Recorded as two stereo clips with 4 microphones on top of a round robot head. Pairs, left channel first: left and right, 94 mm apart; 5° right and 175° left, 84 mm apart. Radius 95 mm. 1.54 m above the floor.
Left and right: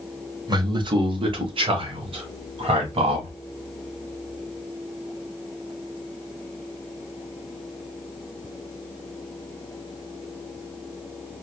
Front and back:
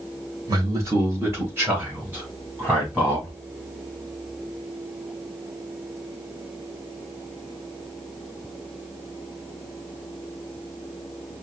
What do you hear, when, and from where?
0.5 s a man speaking: 135° right, 1.0 m; by 3.3 s 105° right, 2.5 m